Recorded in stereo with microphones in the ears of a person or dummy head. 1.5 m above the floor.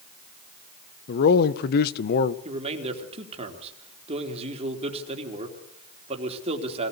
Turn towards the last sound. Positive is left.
turn(degrees=-35)  # may be behind; listen again after turning